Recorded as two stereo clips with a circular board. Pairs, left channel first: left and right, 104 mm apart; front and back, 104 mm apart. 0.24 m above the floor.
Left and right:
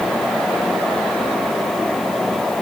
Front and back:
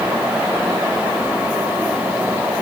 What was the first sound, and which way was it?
Only background noise.